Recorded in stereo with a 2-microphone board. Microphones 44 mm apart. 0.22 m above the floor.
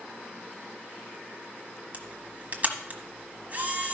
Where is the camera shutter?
40° right (ahead or behind), 1.3 m.